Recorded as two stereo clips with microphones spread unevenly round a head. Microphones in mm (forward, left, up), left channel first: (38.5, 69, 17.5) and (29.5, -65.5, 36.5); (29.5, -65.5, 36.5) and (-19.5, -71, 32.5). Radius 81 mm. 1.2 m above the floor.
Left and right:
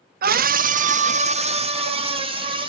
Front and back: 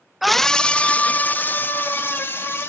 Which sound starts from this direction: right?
A scream, at 0.2 s.